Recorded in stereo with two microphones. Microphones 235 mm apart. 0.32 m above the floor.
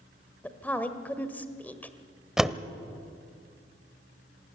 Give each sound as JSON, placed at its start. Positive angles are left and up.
{"t": 0.4, "sound": "a woman speaking", "side_deg": 5, "distance_m": 1.4}
{"t": 2.4, "sound": "a door slam", "side_deg": 0, "distance_m": 0.8}